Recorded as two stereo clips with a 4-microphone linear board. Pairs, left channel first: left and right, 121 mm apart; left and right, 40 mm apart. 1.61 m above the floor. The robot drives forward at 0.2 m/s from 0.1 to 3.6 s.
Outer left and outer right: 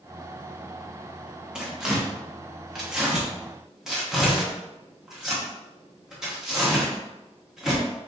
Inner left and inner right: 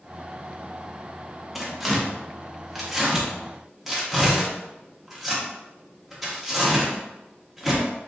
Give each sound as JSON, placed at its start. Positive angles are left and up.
{"t": 1.6, "sound": "tearing paper", "side_deg": -5, "distance_m": 0.9}